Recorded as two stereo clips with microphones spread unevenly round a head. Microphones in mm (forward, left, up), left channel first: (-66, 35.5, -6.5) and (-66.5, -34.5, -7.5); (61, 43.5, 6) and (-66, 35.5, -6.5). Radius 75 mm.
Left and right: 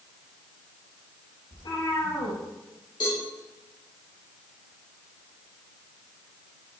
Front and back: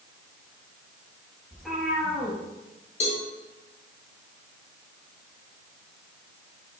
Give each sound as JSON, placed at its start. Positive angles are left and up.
{"t": 1.5, "sound": "a cat meowing", "azimuth_deg": 95, "distance_m": 5.0}
{"t": 3.0, "sound": "a cowbell", "azimuth_deg": 35, "distance_m": 3.0}